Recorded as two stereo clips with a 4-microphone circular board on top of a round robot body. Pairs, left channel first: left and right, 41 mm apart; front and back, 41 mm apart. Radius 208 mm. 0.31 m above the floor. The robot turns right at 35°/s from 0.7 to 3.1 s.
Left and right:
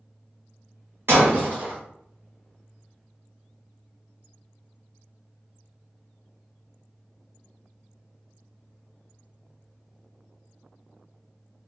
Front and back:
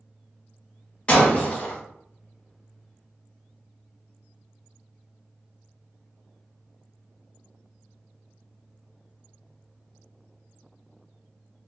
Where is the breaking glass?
65° right, 1.2 m; by 1.8 s 40° right, 1.2 m.